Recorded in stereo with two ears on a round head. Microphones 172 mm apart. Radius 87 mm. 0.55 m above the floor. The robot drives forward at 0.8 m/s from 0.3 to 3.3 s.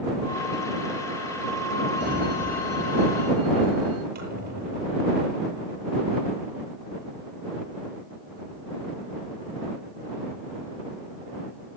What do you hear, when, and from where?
2.0 s a sliding door: 55° right (ahead or behind), 8.5 m; by 4.0 s 65° right (ahead or behind), 8 m
4.2 s a squeak: 55° right (ahead or behind), 9.5 m